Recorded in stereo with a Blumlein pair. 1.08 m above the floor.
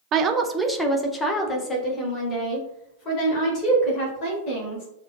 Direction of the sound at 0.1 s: 35° right.